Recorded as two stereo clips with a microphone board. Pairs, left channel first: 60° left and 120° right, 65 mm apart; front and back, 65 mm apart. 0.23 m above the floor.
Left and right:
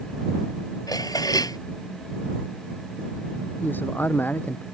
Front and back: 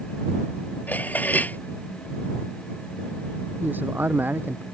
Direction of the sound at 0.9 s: 65° left.